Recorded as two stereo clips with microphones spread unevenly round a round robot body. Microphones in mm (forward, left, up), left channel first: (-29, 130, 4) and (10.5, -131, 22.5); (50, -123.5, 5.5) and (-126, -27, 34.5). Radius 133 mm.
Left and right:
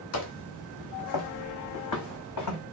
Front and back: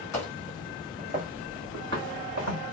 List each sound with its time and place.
0.1 s footsteps: 50° left, 1.2 m; by 2.6 s 130° left, 2.0 m